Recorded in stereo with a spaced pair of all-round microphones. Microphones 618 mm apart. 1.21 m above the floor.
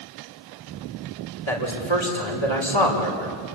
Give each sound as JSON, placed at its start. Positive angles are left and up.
{"t": 1.5, "sound": "a man speaking", "side_deg": 45, "distance_m": 4.5}